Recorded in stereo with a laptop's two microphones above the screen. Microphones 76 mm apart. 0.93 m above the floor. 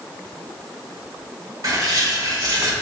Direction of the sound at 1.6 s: 55° right (ahead or behind).